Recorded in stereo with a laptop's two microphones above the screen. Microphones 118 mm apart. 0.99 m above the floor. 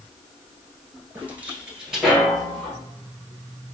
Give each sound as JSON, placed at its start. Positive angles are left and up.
{"t": 1.1, "sound": "footsteps", "side_deg": -15, "distance_m": 1.0}